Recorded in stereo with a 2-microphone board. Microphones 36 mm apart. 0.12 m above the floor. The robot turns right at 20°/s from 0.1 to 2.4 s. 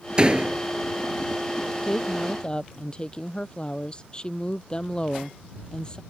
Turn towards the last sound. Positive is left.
turn(degrees=25)  # may be behind; listen again after turning